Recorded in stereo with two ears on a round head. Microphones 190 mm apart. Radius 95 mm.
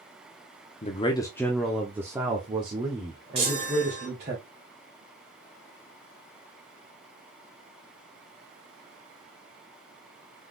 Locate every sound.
0.8 s a man speaking: 30° left (ahead or behind), 0.8 m; by 4.3 s 40° right (ahead or behind), 2 m
3.4 s a chime: 30° right (ahead or behind), 2.5 m